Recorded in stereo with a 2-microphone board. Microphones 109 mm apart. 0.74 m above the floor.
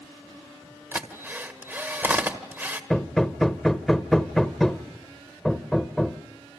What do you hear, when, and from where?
0.9 s a drill: 20° right (ahead or behind), 1.6 m
2.9 s hammering: 5° left (ahead or behind), 0.8 m